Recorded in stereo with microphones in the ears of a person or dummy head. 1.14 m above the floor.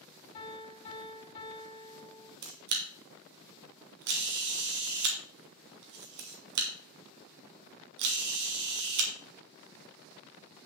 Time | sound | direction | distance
0.3 | a piano | 30° left (ahead or behind) | 2.5 m
2.4 | a camera shutter | 65° right (ahead or behind) | 2 m